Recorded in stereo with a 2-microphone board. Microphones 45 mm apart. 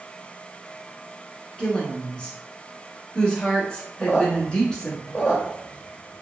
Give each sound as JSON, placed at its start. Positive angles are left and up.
{"t": 1.6, "sound": "a woman speaking", "side_deg": 20, "distance_m": 1.1}
{"t": 4.0, "sound": "a squeak", "side_deg": 20, "distance_m": 0.7}